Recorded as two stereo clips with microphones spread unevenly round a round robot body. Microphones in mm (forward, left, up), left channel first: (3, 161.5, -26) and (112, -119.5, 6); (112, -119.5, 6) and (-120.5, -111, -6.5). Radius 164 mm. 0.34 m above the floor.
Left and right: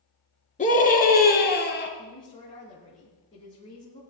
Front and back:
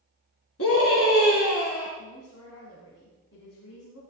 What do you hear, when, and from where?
0.6 s a scream: 45° left, 3.5 m; by 1.9 s 60° left, 3.5 m
2.0 s a woman speaking: 40° left, 3.5 m